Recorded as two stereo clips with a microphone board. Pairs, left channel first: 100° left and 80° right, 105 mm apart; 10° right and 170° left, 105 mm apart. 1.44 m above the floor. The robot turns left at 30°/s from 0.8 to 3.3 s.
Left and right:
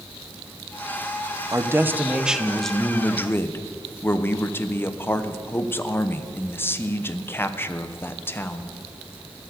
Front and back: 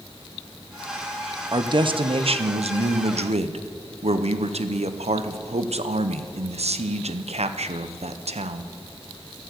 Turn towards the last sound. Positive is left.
turn(degrees=170)